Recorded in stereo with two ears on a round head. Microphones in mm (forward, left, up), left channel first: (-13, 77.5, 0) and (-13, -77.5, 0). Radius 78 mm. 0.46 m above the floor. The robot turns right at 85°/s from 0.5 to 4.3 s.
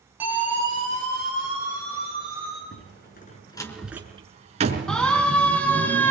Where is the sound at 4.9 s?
5° left (ahead or behind), 4.5 m; by 6.1 s 10° left (ahead or behind), 5 m.